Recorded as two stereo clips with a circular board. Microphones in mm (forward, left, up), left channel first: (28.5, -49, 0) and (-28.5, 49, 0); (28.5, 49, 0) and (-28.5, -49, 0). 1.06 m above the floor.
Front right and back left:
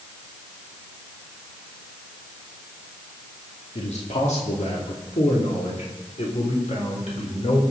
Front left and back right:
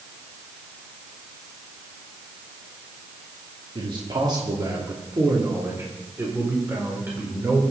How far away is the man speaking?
About 2 m.